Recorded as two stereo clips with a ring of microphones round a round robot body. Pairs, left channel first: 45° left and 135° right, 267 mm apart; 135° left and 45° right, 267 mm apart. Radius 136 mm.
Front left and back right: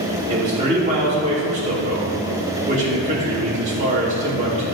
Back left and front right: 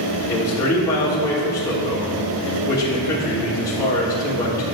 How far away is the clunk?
I don't hear a clunk.